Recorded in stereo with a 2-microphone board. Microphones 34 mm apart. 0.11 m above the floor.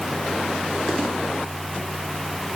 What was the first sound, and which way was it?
Only background noise.